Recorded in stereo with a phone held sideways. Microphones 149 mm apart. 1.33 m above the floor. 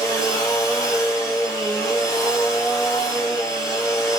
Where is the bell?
No bell in this recording.